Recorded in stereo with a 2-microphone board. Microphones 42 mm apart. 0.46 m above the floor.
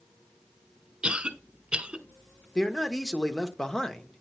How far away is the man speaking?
About 0.8 m.